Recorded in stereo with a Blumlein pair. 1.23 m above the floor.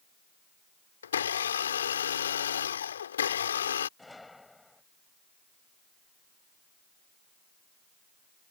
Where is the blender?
65° left.